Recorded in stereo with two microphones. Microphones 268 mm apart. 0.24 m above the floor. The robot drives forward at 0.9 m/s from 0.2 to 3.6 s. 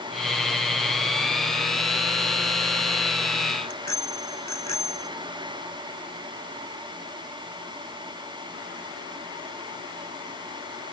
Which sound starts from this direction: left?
A bicycle bell, at 3.6 s.